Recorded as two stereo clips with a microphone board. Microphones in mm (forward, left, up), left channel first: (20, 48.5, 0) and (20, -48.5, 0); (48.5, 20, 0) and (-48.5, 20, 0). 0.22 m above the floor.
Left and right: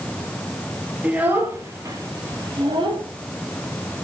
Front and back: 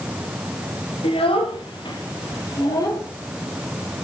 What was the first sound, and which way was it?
A child speaking, 15° right.